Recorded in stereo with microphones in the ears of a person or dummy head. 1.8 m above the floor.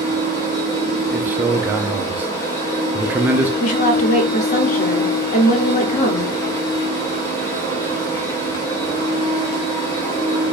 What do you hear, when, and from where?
0.0 s a machine running: 20° left (ahead or behind), 0.8 m
1.1 s a man speaking: 10° right (ahead or behind), 0.5 m
3.6 s a woman speaking: 40° left (ahead or behind), 1.0 m